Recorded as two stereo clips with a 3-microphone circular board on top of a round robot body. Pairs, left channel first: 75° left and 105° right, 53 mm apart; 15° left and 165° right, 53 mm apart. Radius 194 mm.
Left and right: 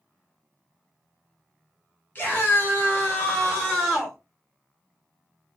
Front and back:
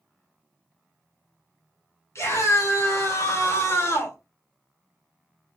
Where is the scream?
20° left, 2.5 m; by 4.2 s 10° right, 2.5 m.